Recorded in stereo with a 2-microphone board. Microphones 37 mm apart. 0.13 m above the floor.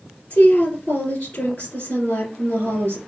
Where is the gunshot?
No gunshot in this recording.